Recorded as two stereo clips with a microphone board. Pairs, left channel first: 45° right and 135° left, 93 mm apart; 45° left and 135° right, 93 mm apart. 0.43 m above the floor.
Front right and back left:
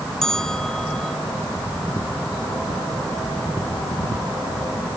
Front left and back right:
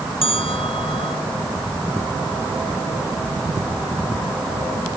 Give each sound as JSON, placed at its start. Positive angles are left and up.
{"t": 0.2, "sound": "a bell", "azimuth_deg": 40}